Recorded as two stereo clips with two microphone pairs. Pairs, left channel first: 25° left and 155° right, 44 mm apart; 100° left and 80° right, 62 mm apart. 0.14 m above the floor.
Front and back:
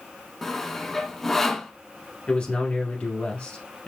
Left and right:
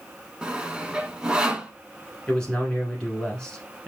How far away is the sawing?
About 0.6 m.